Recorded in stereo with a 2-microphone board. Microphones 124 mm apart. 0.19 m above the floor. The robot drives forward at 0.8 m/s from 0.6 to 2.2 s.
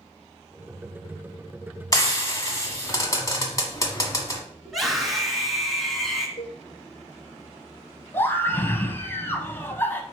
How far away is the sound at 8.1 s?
About 1.1 m.